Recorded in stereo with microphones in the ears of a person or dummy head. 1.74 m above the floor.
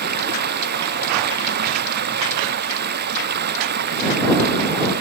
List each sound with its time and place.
0.0 s running water: 50° right (ahead or behind)